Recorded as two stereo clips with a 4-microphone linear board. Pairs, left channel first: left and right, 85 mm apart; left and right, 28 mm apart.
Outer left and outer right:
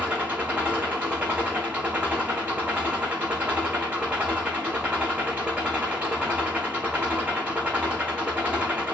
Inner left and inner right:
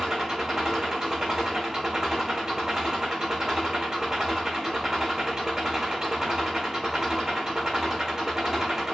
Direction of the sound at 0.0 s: 15° right (ahead or behind).